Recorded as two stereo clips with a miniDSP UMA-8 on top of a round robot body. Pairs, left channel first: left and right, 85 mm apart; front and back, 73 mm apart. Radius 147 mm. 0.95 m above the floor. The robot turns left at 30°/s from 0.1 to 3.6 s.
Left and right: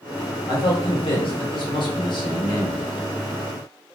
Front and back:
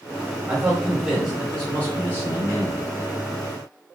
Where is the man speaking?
110° left, 1.4 m; by 2.9 s 40° left, 1.4 m.